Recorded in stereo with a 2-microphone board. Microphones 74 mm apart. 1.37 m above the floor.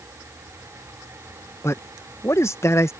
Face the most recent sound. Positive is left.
turn(degrees=35)  # may be behind; listen again after turning